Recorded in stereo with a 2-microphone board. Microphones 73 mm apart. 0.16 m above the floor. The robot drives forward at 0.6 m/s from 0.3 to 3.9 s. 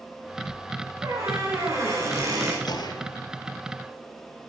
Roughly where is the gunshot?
Left.